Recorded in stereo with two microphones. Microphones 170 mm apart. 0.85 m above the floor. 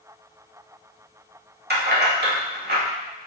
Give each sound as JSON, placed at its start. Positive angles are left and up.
{"t": 1.7, "sound": "keys jangling", "side_deg": -75, "distance_m": 1.2}